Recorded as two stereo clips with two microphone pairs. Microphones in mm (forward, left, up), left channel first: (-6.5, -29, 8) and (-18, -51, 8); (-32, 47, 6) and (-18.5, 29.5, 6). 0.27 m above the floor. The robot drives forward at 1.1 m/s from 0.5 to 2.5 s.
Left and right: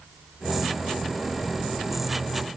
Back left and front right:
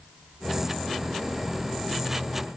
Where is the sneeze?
I don't hear a sneeze.